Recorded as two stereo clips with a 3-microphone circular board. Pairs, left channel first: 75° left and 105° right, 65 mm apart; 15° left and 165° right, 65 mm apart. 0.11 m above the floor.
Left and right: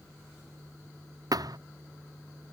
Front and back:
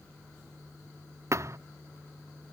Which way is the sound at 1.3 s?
125° right.